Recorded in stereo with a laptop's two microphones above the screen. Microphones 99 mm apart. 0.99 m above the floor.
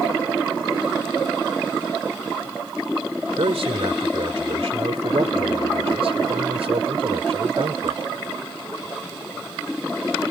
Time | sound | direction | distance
3.4 | a man speaking | 80° right | ?